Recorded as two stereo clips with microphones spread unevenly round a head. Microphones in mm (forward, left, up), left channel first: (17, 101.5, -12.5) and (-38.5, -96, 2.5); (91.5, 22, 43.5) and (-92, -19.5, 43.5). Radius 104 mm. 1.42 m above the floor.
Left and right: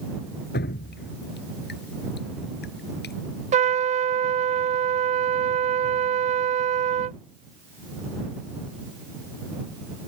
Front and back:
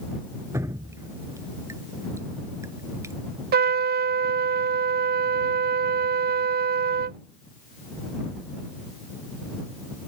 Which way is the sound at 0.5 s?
115° left.